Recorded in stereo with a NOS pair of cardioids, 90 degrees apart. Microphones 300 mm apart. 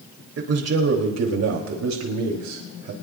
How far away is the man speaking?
About 2.5 m.